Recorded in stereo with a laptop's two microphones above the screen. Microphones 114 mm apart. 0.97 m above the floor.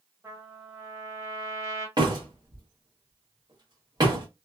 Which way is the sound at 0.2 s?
25° right (ahead or behind).